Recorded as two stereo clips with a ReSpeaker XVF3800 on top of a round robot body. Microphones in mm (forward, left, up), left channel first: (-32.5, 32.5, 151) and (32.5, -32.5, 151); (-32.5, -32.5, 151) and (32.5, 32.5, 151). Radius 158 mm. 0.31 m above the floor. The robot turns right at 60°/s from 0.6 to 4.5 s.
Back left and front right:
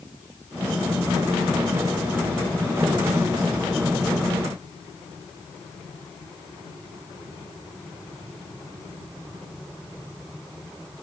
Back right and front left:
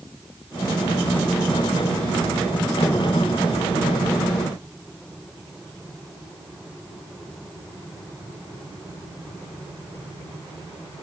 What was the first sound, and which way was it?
Only background noise.